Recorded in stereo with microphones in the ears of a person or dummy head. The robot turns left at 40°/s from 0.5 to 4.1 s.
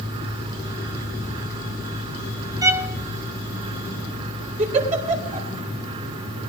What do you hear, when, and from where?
2.6 s a violin: 15° right (ahead or behind), 0.5 m; by 3.0 s centre (ahead or behind), 0.5 m
4.6 s a giggle: 40° right (ahead or behind), 3.5 m